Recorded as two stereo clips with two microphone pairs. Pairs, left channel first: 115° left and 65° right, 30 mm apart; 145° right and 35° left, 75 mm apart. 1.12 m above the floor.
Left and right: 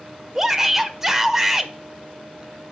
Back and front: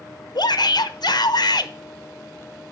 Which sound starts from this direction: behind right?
A shout, at 0.3 s.